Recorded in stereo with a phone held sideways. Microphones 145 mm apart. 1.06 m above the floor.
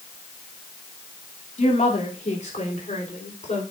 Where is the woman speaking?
60° left (ahead or behind), 2.5 m.